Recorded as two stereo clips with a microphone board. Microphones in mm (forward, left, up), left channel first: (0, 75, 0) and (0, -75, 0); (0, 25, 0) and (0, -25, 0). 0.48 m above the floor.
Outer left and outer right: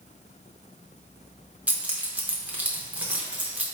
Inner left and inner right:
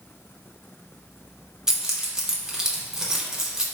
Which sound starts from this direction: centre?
Keys jangling, at 1.7 s.